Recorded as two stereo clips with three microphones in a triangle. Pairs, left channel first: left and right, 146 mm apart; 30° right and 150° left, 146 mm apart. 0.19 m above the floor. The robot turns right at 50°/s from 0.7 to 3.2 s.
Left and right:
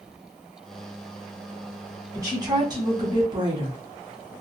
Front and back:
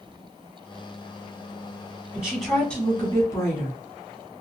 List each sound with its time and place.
2.1 s a woman speaking: 135° right, 1.1 m; by 3.8 s 80° right, 1.1 m